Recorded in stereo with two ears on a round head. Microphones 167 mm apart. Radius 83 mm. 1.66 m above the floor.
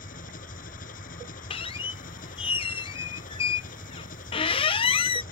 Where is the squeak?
30° left (ahead or behind).